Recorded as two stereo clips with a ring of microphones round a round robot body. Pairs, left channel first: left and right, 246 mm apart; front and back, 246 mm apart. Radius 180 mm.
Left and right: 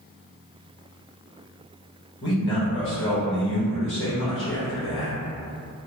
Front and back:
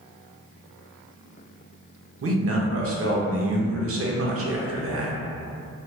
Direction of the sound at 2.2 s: 140° left.